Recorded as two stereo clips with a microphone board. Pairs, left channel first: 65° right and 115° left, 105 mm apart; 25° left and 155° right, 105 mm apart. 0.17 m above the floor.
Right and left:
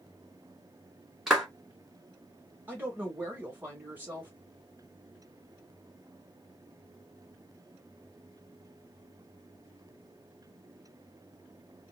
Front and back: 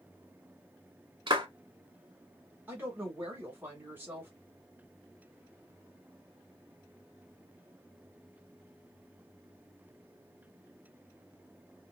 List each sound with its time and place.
1.3 s a clap: 160° right, 1.3 m
2.7 s a woman speaking: 160° left, 1.4 m